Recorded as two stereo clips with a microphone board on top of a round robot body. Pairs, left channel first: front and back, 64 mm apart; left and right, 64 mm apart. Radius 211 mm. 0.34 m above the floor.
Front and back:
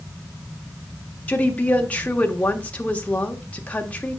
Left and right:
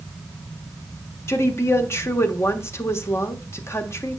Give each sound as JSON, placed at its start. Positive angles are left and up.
{"t": 1.3, "sound": "a woman speaking", "azimuth_deg": 60, "distance_m": 1.6}